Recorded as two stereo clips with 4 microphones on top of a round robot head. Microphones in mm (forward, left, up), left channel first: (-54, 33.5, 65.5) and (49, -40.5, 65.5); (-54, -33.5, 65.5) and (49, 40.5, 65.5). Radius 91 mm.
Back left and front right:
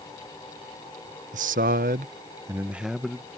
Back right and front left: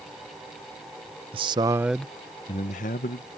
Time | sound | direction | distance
1.3 | a man speaking | 10° right | ?